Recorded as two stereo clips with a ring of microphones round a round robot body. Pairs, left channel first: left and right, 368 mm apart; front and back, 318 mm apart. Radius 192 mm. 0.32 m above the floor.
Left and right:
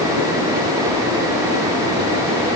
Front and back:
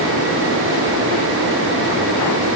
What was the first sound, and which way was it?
Only background noise.